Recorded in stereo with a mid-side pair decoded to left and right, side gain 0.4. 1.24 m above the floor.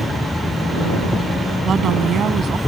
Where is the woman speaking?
60° right.